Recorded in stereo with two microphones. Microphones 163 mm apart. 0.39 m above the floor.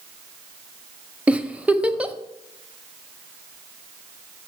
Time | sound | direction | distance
1.3 | a giggle | 10° right (ahead or behind) | 0.5 m